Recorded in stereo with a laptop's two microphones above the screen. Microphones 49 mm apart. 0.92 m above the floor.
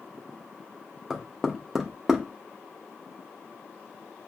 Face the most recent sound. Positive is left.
turn(degrees=-5)  # may be behind; listen again after turning